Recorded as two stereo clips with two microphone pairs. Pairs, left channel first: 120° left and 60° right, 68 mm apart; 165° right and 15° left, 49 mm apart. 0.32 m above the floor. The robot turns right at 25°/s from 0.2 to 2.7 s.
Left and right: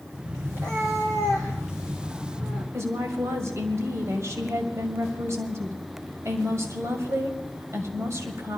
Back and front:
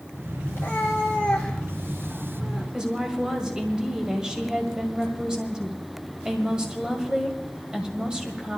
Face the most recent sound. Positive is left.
turn(degrees=-50)